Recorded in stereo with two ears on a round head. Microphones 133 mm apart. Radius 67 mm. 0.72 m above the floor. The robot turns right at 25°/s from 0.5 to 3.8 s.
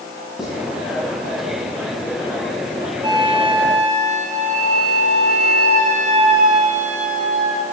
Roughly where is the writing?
Centre.